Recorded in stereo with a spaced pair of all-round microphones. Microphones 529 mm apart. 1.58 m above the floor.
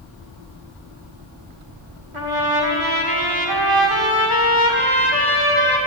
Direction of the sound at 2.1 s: 65° right (ahead or behind).